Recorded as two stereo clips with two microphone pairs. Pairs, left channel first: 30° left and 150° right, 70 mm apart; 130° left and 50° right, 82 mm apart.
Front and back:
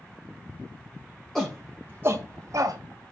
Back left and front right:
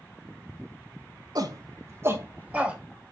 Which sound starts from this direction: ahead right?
A shout, at 1.4 s.